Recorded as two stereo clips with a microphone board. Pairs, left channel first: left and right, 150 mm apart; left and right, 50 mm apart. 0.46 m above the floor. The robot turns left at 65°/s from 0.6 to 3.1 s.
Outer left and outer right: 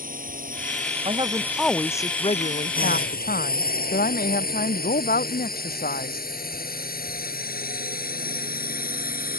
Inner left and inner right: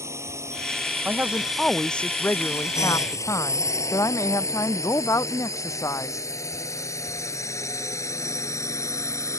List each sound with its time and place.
0.0 s a drone: 65° right (ahead or behind); by 9.4 s 80° left
1.1 s a woman speaking: 140° right; by 6.3 s 85° left